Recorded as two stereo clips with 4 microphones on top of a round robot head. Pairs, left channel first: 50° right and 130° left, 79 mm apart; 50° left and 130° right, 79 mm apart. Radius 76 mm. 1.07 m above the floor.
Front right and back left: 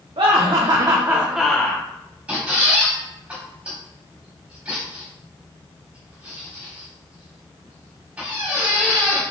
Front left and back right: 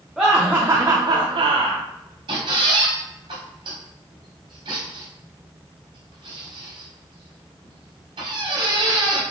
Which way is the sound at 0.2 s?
145° left.